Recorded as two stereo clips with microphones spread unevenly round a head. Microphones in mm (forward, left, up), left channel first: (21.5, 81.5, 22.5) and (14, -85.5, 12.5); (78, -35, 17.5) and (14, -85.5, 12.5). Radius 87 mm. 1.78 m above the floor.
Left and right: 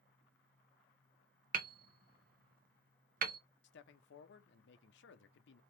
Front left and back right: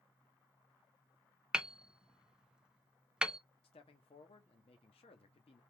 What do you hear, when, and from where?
1.5 s hammering: 60° right, 0.8 m
3.6 s a man speaking: 70° left, 0.7 m